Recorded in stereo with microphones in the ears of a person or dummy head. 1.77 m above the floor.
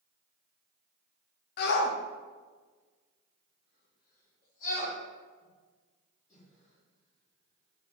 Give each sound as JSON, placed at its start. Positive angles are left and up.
{"t": 1.6, "sound": "a shout", "side_deg": 55, "distance_m": 0.8}